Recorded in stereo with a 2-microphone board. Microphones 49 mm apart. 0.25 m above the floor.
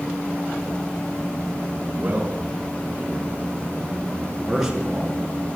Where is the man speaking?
30° right (ahead or behind), 3 m; by 5.2 s 5° right (ahead or behind), 4.5 m.